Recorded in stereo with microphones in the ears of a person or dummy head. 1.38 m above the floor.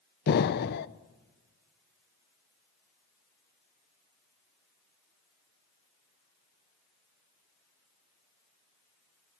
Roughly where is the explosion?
Left.